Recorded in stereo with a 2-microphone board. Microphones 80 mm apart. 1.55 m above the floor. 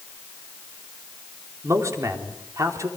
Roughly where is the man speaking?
Right.